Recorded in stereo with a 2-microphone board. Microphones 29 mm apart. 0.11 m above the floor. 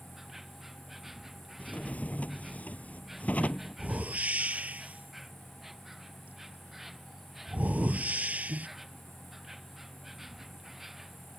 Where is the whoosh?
55° right (ahead or behind).